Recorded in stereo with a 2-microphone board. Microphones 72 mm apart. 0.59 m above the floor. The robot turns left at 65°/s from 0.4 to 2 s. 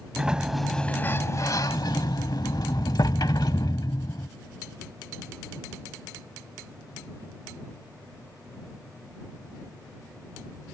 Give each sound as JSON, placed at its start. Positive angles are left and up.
{"t": 0.2, "sound": "a sliding door", "azimuth_deg": -170}